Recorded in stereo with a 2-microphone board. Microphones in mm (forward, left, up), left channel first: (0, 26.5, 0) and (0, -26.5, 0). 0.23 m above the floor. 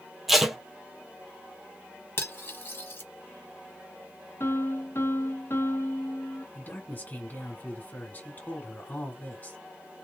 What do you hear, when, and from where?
0.3 s tape being pulled: 5° right (ahead or behind), 1.4 m
2.2 s cutlery clinking: 45° left (ahead or behind), 0.9 m
4.4 s a piano: 50° left (ahead or behind), 0.9 m
6.5 s a man speaking: 35° left (ahead or behind), 2.5 m